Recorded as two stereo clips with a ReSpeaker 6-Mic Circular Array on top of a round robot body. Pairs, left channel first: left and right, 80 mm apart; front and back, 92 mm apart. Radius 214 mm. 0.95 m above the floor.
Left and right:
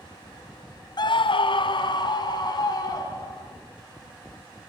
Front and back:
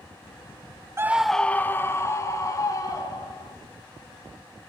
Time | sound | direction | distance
1.0 | a scream | 120° left | 0.5 m